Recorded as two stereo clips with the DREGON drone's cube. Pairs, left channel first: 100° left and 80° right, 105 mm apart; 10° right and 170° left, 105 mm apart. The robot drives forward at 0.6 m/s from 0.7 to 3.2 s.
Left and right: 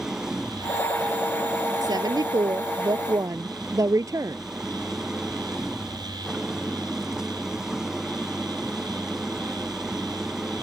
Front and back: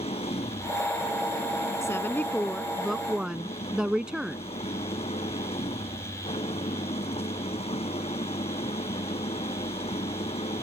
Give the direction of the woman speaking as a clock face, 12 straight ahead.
2 o'clock.